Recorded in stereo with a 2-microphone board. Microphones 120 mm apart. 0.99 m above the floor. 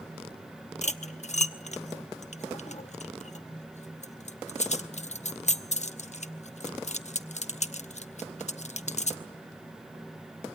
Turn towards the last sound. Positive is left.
turn(degrees=75)  # may be behind; listen again after turning